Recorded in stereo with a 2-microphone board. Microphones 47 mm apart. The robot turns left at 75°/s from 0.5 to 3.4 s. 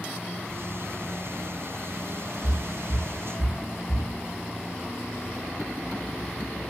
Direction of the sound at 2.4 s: 15° left (ahead or behind).